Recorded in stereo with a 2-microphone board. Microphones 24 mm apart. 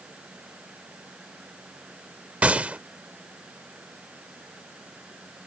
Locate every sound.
2.4 s a gunshot: 65° right (ahead or behind)